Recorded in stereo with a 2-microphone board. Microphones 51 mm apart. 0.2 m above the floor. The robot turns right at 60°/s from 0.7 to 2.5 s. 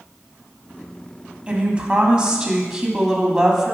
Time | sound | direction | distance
1.5 | a woman speaking | 25° right (ahead or behind) | 1.4 m